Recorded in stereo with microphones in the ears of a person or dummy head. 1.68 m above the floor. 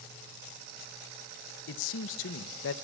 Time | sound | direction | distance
1.7 | a man speaking | 70° left (ahead or behind) | 1.6 m